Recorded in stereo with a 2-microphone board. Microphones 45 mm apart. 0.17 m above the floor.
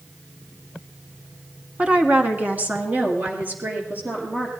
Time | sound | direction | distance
1.8 | a woman speaking | 25° right (ahead or behind) | 1.1 m